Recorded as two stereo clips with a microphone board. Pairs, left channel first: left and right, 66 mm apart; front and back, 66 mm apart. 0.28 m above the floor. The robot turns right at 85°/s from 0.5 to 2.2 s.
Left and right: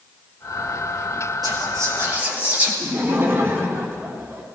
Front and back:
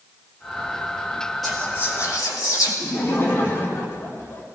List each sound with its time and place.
1.4 s whispering: 90° right, 5.5 m; by 2.7 s 25° right, 5.5 m
2.8 s laughter: 45° right, 3 m